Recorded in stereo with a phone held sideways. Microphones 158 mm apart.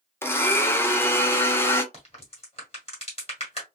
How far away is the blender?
About 0.6 m.